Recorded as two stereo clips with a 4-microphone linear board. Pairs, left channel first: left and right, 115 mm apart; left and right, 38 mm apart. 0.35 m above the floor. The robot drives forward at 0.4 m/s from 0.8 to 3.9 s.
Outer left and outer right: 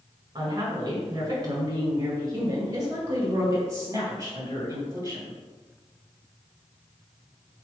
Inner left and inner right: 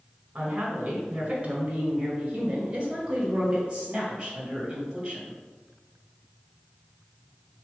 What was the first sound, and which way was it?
A woman speaking, 35° right (ahead or behind).